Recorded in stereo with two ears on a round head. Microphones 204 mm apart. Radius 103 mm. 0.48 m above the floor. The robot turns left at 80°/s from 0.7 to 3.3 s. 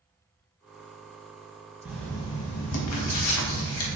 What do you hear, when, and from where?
1.9 s writing: 170° right, 0.6 m; by 4.0 s 70° left, 0.6 m